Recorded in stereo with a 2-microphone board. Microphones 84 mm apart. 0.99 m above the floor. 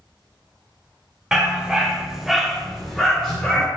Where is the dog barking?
10° right (ahead or behind), 0.9 m; by 3.7 s 5° left (ahead or behind), 1.4 m.